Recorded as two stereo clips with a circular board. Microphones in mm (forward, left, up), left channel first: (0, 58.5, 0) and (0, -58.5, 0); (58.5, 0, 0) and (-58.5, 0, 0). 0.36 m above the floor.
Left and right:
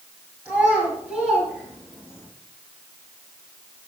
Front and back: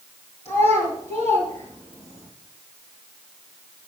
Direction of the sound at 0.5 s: 165° right.